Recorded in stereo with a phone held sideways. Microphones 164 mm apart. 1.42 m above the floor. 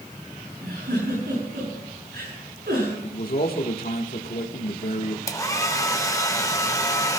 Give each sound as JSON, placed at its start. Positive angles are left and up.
{"t": 0.6, "sound": "a giggle", "side_deg": -85, "distance_m": 8.0}
{"t": 3.0, "sound": "a man speaking", "side_deg": 70, "distance_m": 1.3}
{"t": 5.3, "sound": "a hair dryer", "side_deg": 20, "distance_m": 0.8}